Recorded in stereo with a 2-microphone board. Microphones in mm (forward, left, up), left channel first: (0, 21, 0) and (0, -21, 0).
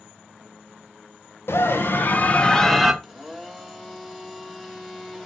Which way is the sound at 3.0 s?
5° left (ahead or behind).